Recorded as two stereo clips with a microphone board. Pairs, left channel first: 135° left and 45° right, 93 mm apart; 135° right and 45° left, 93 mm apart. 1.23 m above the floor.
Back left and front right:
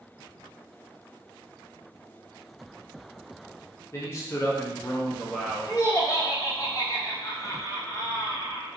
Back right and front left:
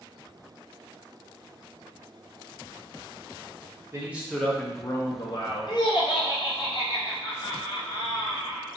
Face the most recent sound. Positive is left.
turn(degrees=-170)